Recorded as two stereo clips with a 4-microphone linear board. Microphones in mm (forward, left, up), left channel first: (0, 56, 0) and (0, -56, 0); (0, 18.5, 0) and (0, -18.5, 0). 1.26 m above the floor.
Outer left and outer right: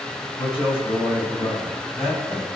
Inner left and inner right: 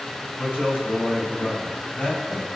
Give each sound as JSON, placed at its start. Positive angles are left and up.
{"t": 0.4, "sound": "a man speaking", "side_deg": 55, "distance_m": 6.0}